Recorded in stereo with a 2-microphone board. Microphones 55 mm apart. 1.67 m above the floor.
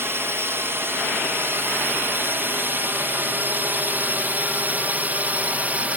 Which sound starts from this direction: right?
A drone, at 0.0 s.